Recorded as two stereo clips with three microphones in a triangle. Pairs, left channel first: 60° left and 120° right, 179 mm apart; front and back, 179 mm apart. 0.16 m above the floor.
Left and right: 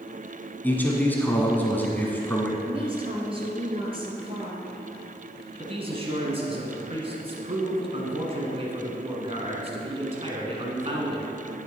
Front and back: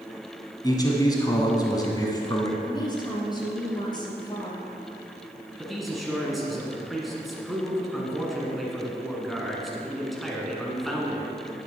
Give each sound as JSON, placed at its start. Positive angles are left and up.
{"t": 0.6, "sound": "a man speaking", "azimuth_deg": -5, "distance_m": 1.1}
{"t": 2.6, "sound": "a woman speaking", "azimuth_deg": -65, "distance_m": 2.5}
{"t": 5.6, "sound": "a man speaking", "azimuth_deg": -90, "distance_m": 1.7}